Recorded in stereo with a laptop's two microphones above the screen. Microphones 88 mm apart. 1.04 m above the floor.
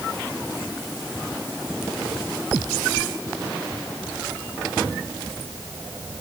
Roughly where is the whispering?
I don't hear whispering.